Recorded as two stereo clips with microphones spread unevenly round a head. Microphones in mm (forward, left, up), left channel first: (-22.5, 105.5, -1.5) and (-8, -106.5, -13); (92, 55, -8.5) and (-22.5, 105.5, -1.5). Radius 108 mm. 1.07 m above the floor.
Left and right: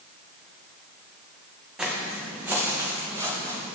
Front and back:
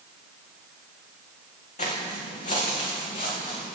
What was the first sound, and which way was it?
Footsteps, straight ahead.